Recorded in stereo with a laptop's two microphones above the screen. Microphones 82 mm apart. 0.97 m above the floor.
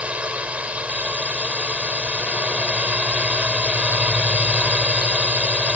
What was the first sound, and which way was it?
A drone, 15° right (ahead or behind).